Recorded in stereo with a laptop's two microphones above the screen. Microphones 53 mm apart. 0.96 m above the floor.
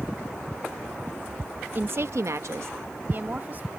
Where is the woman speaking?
40° right (ahead or behind); by 3.7 s 35° right (ahead or behind).